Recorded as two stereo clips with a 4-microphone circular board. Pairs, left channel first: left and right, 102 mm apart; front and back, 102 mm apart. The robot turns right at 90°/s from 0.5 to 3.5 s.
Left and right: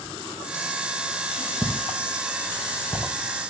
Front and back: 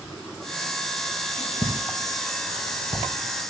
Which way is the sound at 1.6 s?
15° left.